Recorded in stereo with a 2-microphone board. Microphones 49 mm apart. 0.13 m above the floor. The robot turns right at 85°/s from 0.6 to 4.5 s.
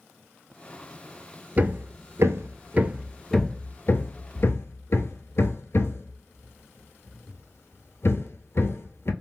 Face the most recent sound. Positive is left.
turn(degrees=60)  # may be behind; listen again after turning